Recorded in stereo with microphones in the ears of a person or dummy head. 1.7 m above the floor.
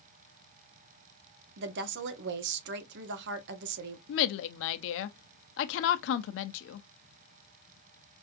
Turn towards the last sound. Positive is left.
turn(degrees=65)  # may be behind; listen again after turning